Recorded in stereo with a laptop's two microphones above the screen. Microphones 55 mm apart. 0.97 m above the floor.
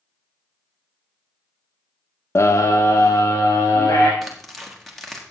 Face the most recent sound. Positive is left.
turn(degrees=0)  # may be behind; listen again after turning